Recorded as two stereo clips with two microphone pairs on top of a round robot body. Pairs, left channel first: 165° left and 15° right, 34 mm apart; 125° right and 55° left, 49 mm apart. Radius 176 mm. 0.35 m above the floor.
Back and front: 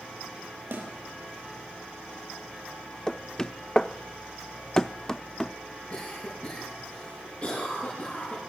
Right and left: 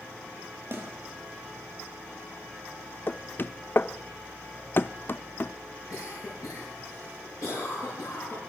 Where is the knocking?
130° right, 0.8 m.